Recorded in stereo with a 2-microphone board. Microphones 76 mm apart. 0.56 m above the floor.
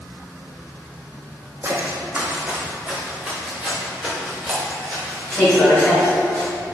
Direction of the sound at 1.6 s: 35° right (ahead or behind).